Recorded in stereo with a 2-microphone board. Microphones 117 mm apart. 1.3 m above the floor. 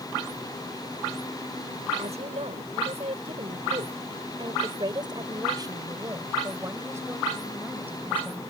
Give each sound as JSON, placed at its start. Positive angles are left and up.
{"t": 2.0, "sound": "a woman speaking", "side_deg": -70}